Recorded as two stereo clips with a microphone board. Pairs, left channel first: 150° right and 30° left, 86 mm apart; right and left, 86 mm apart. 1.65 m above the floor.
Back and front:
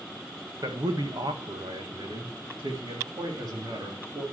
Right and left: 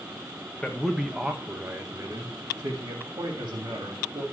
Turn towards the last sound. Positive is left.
turn(degrees=70)